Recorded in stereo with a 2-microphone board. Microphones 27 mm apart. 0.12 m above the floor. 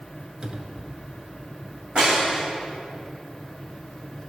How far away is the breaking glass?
About 3.5 m.